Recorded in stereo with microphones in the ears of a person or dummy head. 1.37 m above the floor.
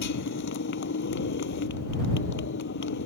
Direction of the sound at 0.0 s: 60° left (ahead or behind).